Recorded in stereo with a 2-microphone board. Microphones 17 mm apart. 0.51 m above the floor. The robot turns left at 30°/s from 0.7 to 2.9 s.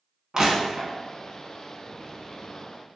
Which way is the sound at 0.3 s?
35° right (ahead or behind).